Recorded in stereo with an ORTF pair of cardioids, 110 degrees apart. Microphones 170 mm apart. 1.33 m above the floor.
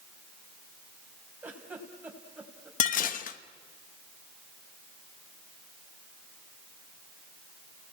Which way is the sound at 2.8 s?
55° left.